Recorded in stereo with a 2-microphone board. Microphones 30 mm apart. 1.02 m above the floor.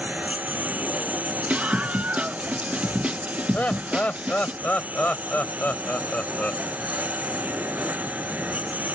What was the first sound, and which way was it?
A lawn mower, 70° right (ahead or behind).